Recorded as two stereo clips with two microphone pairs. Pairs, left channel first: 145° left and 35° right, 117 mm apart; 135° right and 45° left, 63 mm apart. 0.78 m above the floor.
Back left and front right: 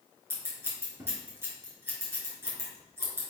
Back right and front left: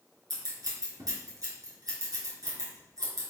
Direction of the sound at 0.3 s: 35° left.